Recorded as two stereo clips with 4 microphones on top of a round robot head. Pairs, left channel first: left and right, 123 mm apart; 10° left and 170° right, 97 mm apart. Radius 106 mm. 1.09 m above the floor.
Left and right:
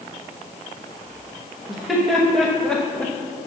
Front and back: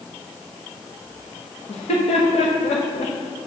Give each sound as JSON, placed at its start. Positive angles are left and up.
{"t": 1.7, "sound": "laughter", "azimuth_deg": -5, "distance_m": 1.5}